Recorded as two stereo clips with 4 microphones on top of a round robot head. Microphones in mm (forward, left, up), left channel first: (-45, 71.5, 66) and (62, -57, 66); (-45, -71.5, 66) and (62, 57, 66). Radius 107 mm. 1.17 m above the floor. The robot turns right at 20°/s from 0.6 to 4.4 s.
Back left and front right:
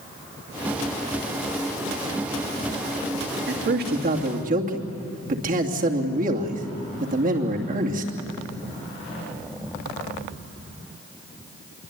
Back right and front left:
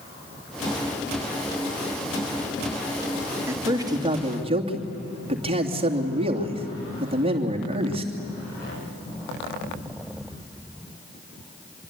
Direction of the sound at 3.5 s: 25° right.